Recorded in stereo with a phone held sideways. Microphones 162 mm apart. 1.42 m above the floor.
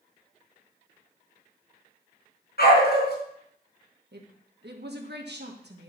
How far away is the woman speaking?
About 1.5 m.